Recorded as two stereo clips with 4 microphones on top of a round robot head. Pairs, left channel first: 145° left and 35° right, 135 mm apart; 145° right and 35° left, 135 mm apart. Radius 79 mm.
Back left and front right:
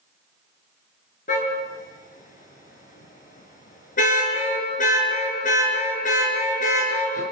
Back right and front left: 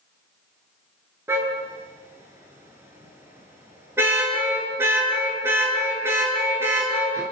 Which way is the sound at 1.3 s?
110° left.